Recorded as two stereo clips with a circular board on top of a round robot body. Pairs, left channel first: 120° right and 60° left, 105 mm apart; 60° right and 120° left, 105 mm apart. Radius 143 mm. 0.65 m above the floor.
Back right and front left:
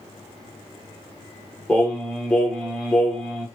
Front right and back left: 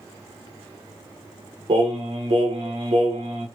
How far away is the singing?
About 0.9 m.